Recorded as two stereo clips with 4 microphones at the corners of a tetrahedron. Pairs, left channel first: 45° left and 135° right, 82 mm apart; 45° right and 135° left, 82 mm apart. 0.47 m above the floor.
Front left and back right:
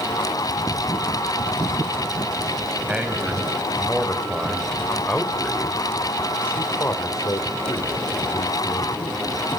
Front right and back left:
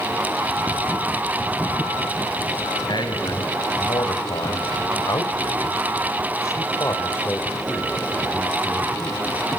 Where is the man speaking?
60° right, 3.5 m; by 9.2 s 45° left, 2.5 m.